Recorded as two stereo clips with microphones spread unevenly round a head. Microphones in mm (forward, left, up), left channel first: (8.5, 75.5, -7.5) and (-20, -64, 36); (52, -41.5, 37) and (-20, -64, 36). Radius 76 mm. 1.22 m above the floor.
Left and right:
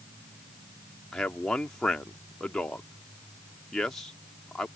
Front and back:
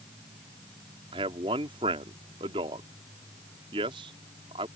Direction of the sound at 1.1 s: 165° left.